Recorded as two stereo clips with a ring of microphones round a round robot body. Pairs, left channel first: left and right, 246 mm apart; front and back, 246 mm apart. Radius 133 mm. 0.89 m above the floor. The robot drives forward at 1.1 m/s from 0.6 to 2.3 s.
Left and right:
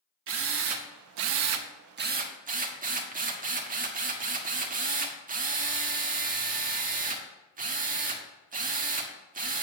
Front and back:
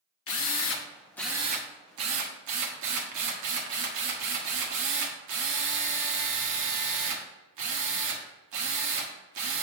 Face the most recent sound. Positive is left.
turn(degrees=-150)